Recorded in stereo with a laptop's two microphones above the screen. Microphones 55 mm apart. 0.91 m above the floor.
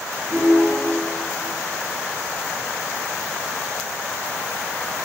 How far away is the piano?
About 5 m.